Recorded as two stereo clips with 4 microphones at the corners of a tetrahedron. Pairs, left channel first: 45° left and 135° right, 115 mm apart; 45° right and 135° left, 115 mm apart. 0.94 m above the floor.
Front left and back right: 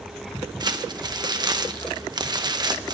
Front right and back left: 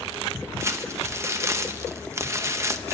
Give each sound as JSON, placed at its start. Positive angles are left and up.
{"t": 0.6, "sound": "crumpling", "azimuth_deg": -170, "distance_m": 0.8}